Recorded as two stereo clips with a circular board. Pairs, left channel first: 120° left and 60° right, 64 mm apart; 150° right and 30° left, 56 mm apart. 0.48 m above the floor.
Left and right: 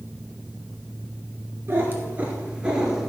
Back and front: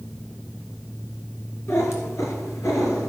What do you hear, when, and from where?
1.7 s a cat meowing: 115° right, 1.8 m; by 3.1 s 145° right, 1.9 m